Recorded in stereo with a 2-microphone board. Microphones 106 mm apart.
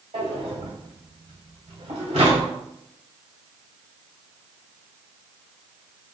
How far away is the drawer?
About 1.4 m.